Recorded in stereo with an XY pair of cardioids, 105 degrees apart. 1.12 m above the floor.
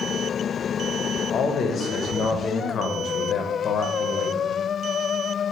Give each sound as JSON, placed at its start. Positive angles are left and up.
{"t": 1.3, "sound": "a man speaking", "azimuth_deg": 55, "distance_m": 0.7}